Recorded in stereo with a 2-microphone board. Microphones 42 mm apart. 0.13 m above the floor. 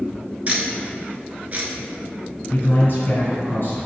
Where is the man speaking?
50° left (ahead or behind), 1.8 m.